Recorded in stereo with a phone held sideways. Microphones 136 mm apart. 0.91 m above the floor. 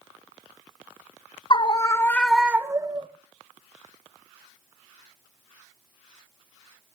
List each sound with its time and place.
1.5 s a scream: 35° left (ahead or behind), 0.9 m; by 3.1 s 35° right (ahead or behind), 0.9 m